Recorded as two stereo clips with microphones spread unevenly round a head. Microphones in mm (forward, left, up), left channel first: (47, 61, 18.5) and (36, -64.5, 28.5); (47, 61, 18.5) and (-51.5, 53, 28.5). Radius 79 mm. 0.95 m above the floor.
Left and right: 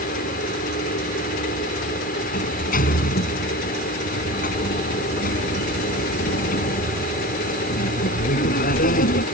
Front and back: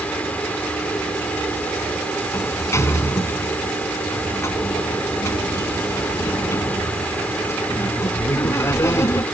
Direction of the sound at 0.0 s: 80° left.